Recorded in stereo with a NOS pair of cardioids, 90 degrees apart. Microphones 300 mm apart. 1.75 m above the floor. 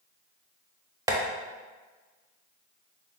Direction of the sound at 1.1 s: 10° right.